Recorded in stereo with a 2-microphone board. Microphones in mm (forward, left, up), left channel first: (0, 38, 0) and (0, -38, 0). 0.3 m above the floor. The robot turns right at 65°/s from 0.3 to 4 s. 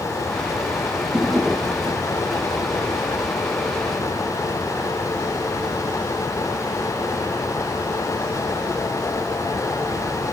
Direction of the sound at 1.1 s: 5° right.